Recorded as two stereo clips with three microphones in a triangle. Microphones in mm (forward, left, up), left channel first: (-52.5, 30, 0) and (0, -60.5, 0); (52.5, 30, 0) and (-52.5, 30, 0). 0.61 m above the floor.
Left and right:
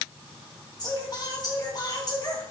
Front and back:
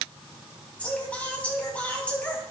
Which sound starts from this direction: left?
Singing, at 0.8 s.